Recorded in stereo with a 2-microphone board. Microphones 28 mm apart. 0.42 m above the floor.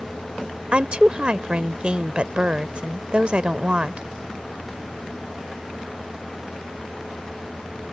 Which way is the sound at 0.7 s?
40° right (ahead or behind).